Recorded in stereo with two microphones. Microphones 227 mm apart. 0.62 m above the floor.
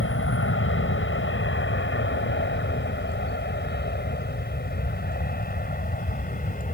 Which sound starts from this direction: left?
An aircraft, at 0.0 s.